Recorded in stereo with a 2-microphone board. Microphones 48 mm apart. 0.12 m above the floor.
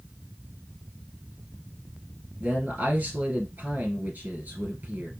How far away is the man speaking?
About 2 m.